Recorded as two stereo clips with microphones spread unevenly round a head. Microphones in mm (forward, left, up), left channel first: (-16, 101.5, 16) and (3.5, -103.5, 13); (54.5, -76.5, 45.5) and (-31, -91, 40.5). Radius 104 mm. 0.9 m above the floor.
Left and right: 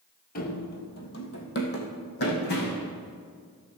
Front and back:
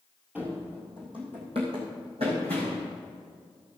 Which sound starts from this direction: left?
Running footsteps, at 0.3 s.